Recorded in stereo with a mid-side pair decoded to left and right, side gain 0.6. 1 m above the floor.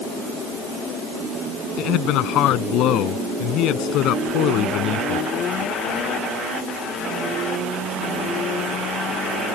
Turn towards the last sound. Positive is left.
turn(degrees=65)